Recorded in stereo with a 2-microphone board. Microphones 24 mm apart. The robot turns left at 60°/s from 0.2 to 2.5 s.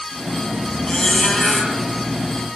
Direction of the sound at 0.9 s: 40° left.